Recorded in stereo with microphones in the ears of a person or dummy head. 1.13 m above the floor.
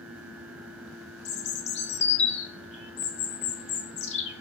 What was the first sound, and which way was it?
A bird, 35° left (ahead or behind).